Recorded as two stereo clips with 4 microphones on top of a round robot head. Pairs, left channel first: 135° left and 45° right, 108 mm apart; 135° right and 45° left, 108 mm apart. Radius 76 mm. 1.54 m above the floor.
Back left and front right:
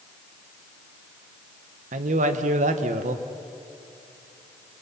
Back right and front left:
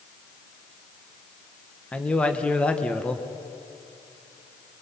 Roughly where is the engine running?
I don't hear an engine running.